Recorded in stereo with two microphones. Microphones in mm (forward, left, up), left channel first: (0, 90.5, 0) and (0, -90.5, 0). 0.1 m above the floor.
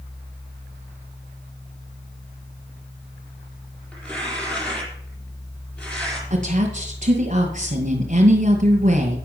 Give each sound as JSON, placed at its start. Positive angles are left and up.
{"t": 3.9, "sound": "tearing paper", "side_deg": 5, "distance_m": 4.0}
{"t": 6.3, "sound": "a woman speaking", "side_deg": -45, "distance_m": 2.0}